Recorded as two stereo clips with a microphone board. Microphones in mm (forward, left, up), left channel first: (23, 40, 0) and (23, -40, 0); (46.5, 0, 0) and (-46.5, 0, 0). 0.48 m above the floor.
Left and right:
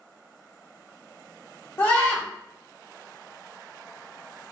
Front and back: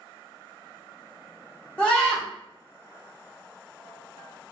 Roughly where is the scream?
Ahead left.